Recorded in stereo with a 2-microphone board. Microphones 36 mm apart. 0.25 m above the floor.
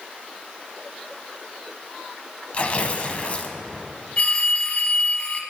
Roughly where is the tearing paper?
Left.